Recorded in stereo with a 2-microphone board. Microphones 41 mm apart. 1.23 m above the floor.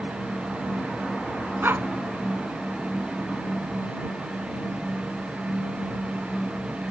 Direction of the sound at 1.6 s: 60° right (ahead or behind).